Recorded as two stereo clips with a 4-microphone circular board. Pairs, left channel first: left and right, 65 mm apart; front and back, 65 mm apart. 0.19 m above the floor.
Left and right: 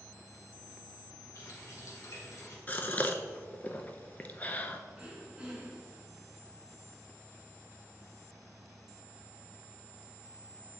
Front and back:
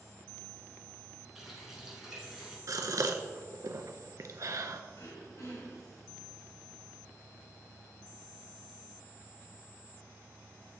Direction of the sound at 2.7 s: 155° left.